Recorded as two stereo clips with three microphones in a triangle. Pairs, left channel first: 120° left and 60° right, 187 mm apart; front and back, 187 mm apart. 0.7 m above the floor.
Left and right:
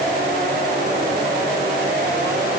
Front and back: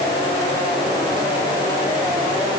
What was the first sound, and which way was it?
Only background noise.